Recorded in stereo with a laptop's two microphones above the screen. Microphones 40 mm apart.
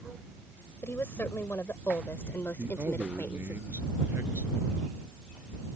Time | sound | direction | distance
0.8 | a woman speaking | 65° left (ahead or behind) | ?
2.6 | a man speaking | 75° right (ahead or behind) | ?